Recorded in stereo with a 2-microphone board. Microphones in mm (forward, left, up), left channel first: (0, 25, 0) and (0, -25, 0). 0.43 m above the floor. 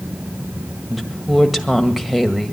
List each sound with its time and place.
0.9 s a woman speaking: 5° right (ahead or behind), 1.7 m